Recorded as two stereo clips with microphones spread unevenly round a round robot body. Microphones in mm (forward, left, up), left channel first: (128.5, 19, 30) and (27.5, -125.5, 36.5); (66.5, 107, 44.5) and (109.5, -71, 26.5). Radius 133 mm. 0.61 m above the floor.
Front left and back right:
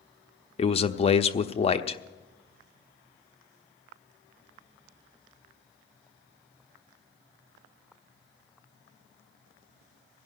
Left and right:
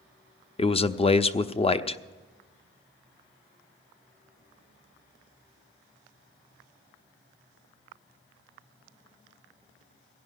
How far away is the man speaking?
About 0.6 m.